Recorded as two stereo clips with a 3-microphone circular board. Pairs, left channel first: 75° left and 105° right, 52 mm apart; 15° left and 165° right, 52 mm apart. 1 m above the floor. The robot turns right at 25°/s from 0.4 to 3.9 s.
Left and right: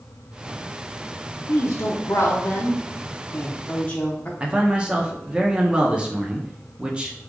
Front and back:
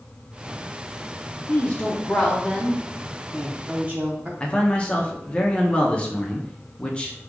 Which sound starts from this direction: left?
A woman speaking, at 1.5 s.